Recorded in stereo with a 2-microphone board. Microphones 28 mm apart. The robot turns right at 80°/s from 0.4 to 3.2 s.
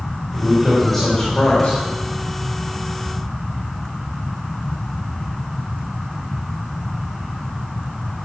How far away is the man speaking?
About 4 m.